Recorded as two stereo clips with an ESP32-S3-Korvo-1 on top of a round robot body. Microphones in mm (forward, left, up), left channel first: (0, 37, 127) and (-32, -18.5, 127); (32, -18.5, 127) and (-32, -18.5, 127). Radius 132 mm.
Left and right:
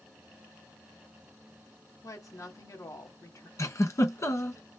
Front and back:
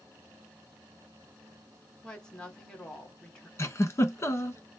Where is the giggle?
35° left, 1.5 m.